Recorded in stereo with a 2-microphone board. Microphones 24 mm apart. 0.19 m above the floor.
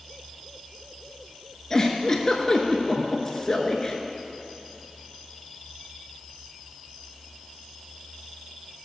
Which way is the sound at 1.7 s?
25° left (ahead or behind).